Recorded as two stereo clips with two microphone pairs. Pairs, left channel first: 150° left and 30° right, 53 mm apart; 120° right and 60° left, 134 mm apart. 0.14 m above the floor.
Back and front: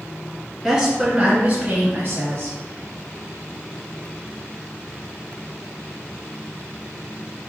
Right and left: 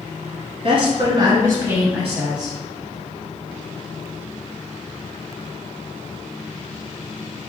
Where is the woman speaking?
55° left, 1.7 m; by 2.6 s 45° right, 1.8 m.